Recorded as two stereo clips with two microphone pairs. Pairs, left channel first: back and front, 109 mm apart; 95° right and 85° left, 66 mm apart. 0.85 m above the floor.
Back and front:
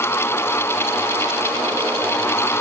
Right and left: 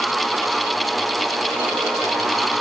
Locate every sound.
Only background noise.